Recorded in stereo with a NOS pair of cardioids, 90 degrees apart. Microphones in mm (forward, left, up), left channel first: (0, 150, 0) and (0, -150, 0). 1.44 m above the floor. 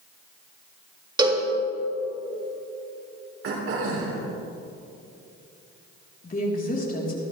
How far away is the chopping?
No chopping in this recording.